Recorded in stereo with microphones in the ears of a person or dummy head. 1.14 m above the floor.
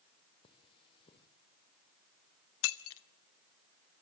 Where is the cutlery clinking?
30° left (ahead or behind), 2 m.